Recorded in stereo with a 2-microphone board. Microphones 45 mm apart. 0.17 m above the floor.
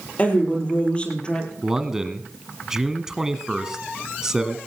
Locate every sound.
0.2 s a woman speaking: 30° left (ahead or behind), 5 m; by 1.5 s 20° left (ahead or behind), 4.5 m
1.6 s a man speaking: 10° right (ahead or behind), 1.1 m